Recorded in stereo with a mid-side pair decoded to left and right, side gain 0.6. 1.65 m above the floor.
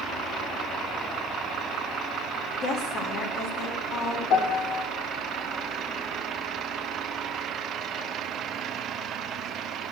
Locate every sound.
2.6 s a woman speaking: 60° left, 3 m
4.3 s a piano: 70° left, 1.5 m